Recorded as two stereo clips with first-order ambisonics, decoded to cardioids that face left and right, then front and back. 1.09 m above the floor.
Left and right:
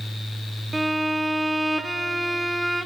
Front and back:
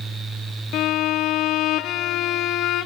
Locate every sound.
0.7 s a violin: 10° right, 0.6 m